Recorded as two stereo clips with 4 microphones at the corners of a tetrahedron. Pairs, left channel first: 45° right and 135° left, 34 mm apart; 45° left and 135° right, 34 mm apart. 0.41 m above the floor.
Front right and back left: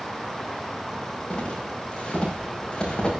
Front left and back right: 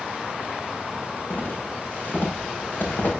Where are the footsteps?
15° left, 7.5 m; by 3.1 s 20° left, 8 m.